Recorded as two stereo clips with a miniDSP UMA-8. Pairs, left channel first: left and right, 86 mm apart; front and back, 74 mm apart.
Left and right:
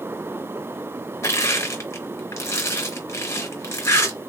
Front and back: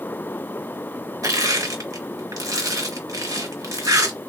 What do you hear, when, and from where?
1.2 s crushing: 145° left, 1.0 m